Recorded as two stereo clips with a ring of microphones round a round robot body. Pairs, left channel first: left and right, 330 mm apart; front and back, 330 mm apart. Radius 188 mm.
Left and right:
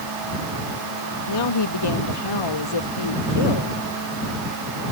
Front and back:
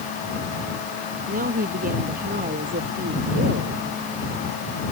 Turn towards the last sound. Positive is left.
turn(degrees=110)